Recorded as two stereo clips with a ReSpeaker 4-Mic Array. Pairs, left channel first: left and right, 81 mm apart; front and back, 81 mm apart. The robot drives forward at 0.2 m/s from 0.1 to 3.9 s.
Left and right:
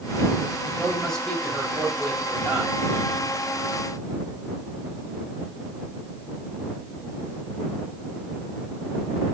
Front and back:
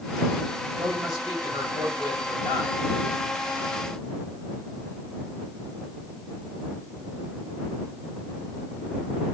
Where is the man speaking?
170° left, 8.5 m; by 2.8 s 175° left, 9 m.